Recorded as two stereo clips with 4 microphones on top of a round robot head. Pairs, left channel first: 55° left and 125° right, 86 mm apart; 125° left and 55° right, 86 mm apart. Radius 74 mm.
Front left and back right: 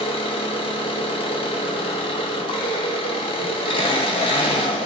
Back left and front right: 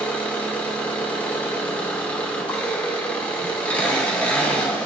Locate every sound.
0.0 s an engine running: 50° left, 0.9 m